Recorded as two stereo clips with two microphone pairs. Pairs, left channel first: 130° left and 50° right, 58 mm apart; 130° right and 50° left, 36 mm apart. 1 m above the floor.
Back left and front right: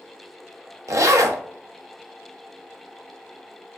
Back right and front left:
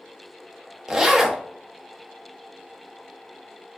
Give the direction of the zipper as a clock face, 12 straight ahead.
1 o'clock.